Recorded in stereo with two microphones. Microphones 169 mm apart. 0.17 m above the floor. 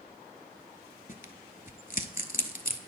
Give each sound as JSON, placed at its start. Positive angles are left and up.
{"t": 1.1, "sound": "tearing paper", "side_deg": 55, "distance_m": 0.6}